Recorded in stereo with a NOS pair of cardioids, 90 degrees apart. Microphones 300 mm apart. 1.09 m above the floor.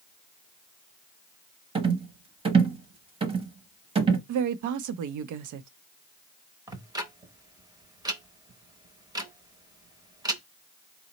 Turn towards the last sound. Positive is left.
turn(degrees=-10)